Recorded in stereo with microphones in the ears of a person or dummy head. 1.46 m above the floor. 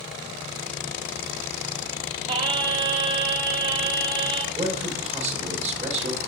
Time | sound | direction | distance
2.3 | singing | 30° right (ahead or behind) | 1.3 m
4.5 | a man speaking | 35° right (ahead or behind) | 1.9 m